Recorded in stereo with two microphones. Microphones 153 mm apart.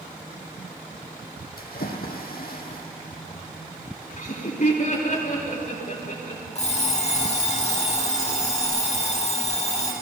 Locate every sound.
1.6 s a splash: 85° left, 1.6 m
4.2 s laughter: 60° left (ahead or behind), 4.5 m
6.5 s an alarm clock: 50° left (ahead or behind), 3 m